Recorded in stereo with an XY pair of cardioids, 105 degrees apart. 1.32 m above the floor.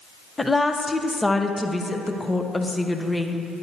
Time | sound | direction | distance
0.4 | a woman speaking | 15° left | 0.8 m